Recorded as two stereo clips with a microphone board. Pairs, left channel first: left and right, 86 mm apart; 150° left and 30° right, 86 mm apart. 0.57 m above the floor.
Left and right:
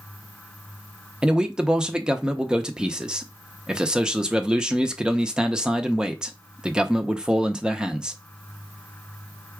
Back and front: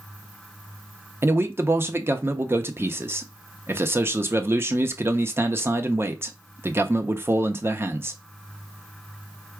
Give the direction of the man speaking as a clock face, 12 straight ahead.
1 o'clock.